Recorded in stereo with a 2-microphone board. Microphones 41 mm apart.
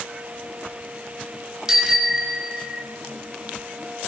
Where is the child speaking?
I don't hear a child speaking.